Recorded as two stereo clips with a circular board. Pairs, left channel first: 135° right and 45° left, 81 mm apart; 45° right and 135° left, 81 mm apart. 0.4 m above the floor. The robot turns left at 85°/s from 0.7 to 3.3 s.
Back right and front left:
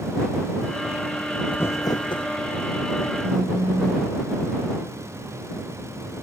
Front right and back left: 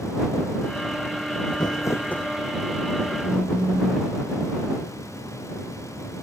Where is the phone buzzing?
65° left; by 4.1 s 60° left.